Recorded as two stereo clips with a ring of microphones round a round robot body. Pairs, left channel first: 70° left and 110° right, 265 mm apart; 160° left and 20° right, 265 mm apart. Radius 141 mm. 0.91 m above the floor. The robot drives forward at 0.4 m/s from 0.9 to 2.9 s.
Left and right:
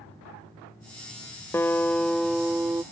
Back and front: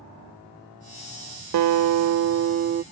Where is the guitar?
15° right; by 2.8 s 40° right.